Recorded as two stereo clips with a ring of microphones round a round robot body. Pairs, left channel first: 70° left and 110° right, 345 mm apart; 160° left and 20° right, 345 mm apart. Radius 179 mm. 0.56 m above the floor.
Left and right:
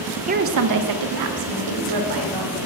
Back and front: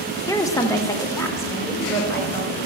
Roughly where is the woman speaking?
Behind right.